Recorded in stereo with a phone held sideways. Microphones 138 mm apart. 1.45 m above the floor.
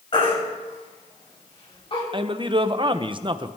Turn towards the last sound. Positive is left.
turn(degrees=-35)  # may be behind; listen again after turning